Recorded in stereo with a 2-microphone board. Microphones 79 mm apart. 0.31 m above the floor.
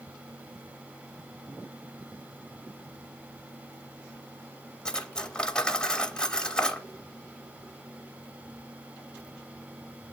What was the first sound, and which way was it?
Cutlery clinking, 10° left (ahead or behind).